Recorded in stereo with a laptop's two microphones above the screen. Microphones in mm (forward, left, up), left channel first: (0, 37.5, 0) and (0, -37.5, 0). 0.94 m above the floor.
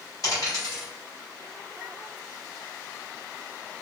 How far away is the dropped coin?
About 1.4 m.